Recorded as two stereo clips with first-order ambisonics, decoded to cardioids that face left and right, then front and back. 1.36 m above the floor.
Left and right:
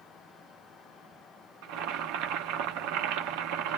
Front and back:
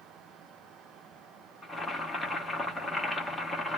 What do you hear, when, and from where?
1.6 s boiling: 85° right, 0.8 m